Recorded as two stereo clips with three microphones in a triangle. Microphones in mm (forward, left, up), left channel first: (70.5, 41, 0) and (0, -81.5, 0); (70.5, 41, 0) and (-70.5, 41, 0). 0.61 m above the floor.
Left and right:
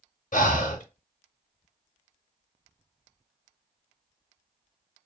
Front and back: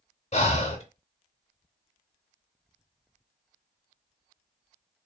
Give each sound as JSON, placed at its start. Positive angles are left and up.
{"t": 0.3, "sound": "breathing", "azimuth_deg": 40, "distance_m": 0.6}